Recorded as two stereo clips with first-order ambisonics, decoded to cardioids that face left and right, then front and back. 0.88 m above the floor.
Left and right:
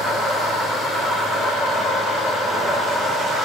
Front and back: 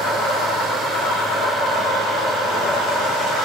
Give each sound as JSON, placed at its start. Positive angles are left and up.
{"t": 0.0, "sound": "an insect", "azimuth_deg": -5, "distance_m": 0.8}